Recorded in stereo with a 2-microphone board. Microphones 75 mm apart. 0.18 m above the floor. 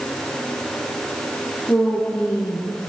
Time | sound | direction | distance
1.7 | a woman speaking | 15° left (ahead or behind) | 7.5 m